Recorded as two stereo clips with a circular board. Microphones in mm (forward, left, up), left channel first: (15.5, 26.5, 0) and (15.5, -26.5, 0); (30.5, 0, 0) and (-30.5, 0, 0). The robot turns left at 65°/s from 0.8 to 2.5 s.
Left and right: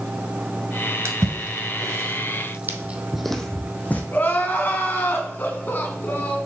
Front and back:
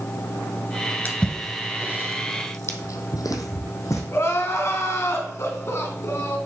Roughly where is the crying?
Ahead left.